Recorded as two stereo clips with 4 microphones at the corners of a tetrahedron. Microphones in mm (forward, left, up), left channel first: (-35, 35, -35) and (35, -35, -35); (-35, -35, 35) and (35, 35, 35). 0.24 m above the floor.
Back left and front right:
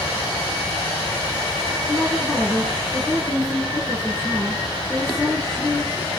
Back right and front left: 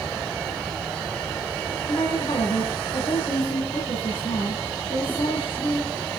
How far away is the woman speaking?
About 2.5 m.